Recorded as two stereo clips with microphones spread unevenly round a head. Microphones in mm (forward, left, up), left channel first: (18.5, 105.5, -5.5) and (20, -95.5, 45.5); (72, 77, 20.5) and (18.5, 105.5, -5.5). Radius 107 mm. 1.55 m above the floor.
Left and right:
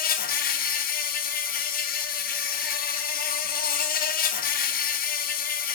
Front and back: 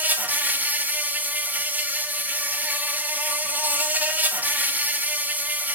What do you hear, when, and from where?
0.0 s an insect: 110° left, 1.2 m